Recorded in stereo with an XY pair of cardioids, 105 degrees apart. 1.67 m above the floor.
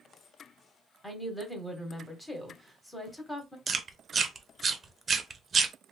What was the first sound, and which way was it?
A woman speaking, 15° left.